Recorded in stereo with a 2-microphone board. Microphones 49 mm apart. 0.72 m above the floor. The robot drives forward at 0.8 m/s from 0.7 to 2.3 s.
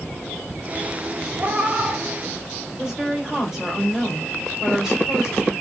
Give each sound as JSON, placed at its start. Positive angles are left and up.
{"t": 1.4, "sound": "a cat meowing", "side_deg": -35, "distance_m": 0.7}
{"t": 2.8, "sound": "a woman speaking", "side_deg": -10, "distance_m": 1.8}